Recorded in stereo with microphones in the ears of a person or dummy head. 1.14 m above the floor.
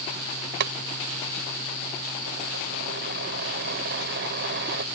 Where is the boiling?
65° right (ahead or behind).